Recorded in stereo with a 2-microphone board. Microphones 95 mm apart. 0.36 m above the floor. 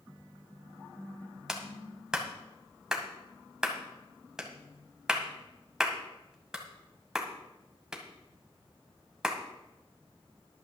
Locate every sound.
1.5 s a clap: 5° right (ahead or behind), 1.7 m